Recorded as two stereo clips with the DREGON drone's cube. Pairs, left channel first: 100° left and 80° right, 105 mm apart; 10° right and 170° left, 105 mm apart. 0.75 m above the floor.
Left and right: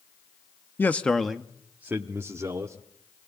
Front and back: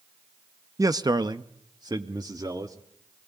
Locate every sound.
0.8 s a man speaking: 150° left, 0.8 m; by 2.8 s 135° right, 1.8 m